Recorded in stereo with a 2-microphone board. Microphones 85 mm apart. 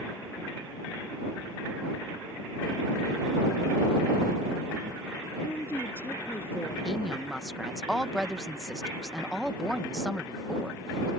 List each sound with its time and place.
5.4 s a woman speaking: 25° left (ahead or behind)
6.8 s a woman speaking: 5° right (ahead or behind)